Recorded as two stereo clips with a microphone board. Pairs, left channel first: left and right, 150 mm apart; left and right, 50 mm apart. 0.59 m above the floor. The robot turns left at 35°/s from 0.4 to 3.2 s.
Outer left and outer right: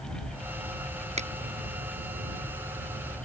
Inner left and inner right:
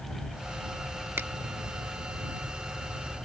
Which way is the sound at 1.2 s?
45° right (ahead or behind).